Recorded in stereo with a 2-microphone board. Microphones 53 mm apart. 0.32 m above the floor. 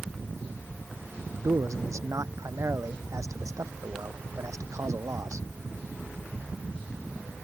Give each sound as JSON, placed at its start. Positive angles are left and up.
{"t": 1.4, "sound": "a man speaking", "side_deg": -75}